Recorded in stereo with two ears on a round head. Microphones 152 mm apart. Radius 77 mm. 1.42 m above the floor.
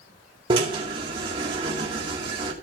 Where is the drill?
30° right (ahead or behind), 2.5 m.